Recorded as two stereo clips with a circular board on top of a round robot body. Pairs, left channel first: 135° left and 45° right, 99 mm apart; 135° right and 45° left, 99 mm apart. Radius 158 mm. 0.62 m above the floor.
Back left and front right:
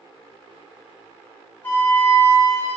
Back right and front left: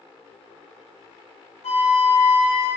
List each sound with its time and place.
1.6 s a flute: 150° right, 0.8 m